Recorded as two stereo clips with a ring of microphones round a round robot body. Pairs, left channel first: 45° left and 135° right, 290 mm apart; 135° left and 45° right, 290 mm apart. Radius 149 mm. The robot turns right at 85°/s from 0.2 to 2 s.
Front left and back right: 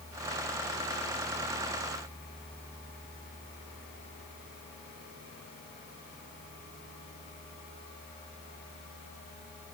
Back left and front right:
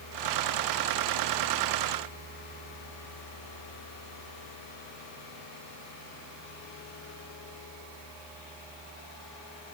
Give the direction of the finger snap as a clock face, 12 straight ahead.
I don't hear a finger snap.